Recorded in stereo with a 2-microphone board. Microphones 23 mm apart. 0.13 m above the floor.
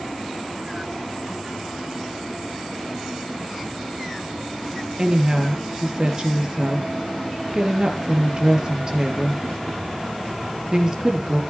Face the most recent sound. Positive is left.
turn(degrees=-35)  # may be behind; listen again after turning